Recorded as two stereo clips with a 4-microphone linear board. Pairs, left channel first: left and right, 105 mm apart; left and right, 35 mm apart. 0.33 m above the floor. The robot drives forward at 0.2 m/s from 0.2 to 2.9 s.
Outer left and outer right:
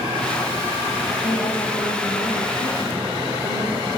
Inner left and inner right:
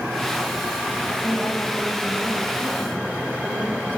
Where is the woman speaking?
75° left (ahead or behind), 7 m; by 4.0 s 80° left, 7 m.